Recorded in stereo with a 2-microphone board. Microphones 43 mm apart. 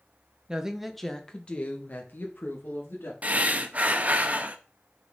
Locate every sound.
0.5 s a woman speaking: 20° right (ahead or behind), 1.1 m; by 3.1 s 55° left (ahead or behind), 2.5 m
3.2 s breathing: 35° right (ahead or behind), 0.8 m